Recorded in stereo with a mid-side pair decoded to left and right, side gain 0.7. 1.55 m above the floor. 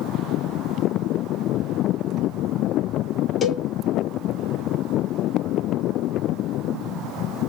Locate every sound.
3.4 s a cowbell: 25° left, 0.6 m